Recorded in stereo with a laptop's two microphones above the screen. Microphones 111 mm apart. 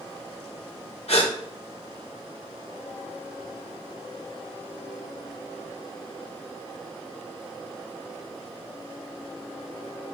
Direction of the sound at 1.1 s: 60° left (ahead or behind).